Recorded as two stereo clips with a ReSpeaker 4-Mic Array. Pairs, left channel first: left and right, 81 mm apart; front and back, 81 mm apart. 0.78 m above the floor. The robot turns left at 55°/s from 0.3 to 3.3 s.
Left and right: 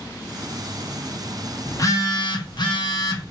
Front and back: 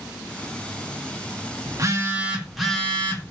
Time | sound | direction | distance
1.7 | a phone buzzing | 140° left | 0.8 m